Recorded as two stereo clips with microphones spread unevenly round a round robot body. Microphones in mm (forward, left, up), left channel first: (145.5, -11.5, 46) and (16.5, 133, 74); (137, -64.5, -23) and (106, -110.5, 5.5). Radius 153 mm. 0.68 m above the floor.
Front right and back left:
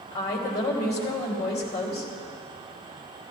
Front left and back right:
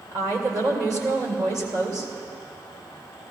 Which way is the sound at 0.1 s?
110° right.